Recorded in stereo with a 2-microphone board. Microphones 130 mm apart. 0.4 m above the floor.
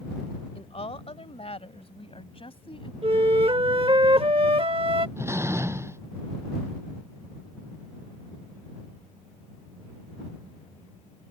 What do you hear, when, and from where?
0.6 s a woman speaking: 50° left (ahead or behind); by 2.9 s 45° left (ahead or behind)
3.0 s a flute: 45° right (ahead or behind)
5.2 s a door slam: 20° right (ahead or behind)